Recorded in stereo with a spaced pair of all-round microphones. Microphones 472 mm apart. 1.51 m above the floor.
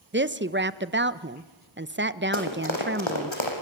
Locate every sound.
0.1 s a woman speaking: 25° right (ahead or behind), 1.0 m
2.3 s running footsteps: 75° left (ahead or behind), 5 m; by 3.5 s 70° left (ahead or behind), 6 m